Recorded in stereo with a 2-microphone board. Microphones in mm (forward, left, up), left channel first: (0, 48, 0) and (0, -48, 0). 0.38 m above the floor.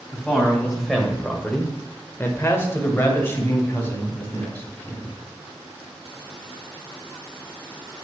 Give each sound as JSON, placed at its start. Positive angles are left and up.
{"t": 0.1, "sound": "a man speaking", "side_deg": -5, "distance_m": 1.9}